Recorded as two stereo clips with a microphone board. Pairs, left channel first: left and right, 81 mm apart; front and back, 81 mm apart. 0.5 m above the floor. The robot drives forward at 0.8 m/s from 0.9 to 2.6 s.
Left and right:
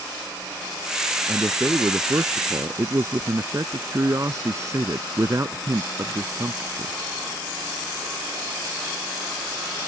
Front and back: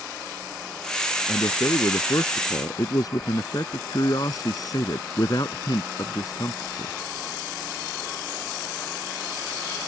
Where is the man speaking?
35° right; by 7.0 s 40° right.